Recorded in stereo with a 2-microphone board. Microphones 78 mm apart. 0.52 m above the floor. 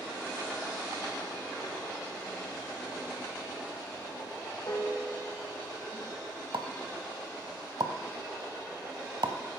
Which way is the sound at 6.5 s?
75° right (ahead or behind).